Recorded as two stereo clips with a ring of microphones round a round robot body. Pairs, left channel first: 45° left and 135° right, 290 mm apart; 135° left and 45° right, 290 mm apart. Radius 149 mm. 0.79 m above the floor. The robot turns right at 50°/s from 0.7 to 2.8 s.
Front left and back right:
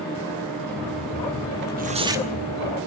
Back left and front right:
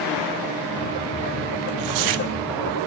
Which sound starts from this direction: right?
Tearing paper, at 1.6 s.